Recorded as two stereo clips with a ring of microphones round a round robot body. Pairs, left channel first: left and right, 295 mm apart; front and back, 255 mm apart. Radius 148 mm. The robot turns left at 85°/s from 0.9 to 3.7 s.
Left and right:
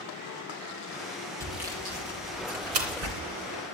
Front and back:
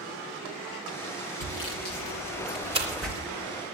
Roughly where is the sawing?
Ahead.